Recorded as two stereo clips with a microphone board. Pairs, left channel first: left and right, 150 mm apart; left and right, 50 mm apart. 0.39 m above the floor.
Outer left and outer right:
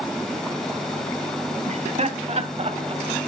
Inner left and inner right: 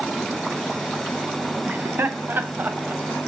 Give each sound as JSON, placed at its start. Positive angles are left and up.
{"t": 1.7, "sound": "laughter", "side_deg": -50, "distance_m": 2.5}